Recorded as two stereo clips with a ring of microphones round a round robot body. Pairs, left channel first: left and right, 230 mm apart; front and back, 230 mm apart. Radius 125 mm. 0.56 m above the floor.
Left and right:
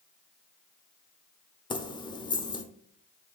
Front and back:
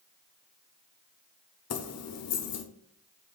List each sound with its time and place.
1.7 s keys jangling: 20° left, 1.0 m